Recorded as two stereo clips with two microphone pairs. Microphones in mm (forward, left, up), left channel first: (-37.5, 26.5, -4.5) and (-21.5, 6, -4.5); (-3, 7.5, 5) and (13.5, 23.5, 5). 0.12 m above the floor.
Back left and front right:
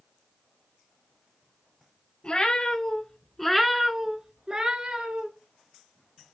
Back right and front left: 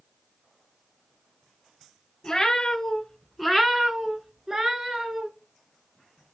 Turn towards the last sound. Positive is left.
turn(degrees=-5)